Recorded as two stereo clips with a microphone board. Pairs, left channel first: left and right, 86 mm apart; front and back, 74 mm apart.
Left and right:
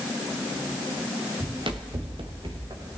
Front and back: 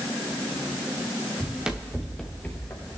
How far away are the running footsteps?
About 1.9 m.